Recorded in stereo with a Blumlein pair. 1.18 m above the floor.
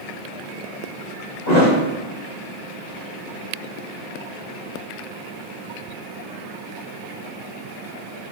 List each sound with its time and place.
1.5 s a thud: 55° left, 1.6 m